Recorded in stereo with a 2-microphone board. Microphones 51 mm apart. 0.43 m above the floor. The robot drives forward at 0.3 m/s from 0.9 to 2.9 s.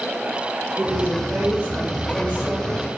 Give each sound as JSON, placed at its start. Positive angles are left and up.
{"t": 0.8, "sound": "a woman speaking", "side_deg": -35, "distance_m": 1.1}